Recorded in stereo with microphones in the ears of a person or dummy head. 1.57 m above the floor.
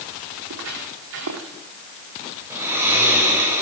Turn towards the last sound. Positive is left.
turn(degrees=-15)  # may be behind; listen again after turning